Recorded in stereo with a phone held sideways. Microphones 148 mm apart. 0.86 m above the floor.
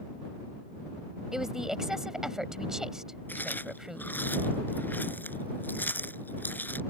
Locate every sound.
1.3 s a woman speaking: 5° right (ahead or behind)
3.3 s chewing: 15° left (ahead or behind)